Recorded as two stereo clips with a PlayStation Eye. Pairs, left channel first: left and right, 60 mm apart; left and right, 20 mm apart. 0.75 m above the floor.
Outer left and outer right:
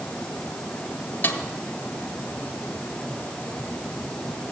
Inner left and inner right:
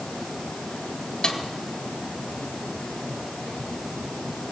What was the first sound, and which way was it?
A snare drum, 35° left (ahead or behind).